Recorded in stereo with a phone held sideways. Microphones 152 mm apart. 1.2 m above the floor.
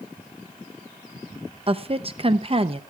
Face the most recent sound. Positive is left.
turn(degrees=-40)  # may be behind; listen again after turning